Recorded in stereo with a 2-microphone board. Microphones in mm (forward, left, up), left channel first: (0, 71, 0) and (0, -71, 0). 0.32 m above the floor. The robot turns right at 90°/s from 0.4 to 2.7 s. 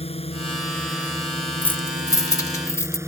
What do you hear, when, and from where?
0.0 s a drone: 135° left; by 3.1 s 20° right
1.6 s keys jangling: 10° left (ahead or behind); by 3.0 s 20° left (ahead or behind)